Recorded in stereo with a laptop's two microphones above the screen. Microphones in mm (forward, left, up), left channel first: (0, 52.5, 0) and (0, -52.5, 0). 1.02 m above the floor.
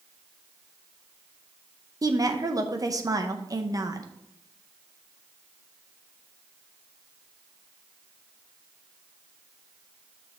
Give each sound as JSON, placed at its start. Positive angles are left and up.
{"t": 2.0, "sound": "a woman speaking", "side_deg": -35, "distance_m": 0.6}